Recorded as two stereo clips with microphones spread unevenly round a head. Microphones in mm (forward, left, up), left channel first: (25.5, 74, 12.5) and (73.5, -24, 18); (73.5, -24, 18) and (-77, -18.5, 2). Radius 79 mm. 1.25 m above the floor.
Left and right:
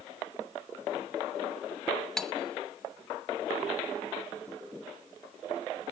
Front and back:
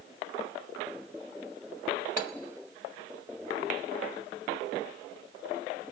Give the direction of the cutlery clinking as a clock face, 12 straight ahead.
11 o'clock.